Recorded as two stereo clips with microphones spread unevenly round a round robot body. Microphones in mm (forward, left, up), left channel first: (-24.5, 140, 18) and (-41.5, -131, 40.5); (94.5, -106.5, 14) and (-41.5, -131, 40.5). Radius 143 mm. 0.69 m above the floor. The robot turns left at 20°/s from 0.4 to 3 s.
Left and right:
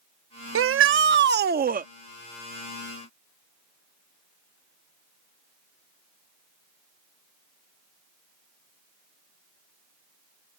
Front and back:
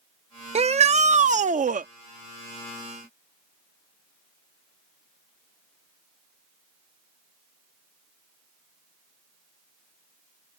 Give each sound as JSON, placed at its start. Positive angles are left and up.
{"t": 0.6, "sound": "a shout", "azimuth_deg": -125}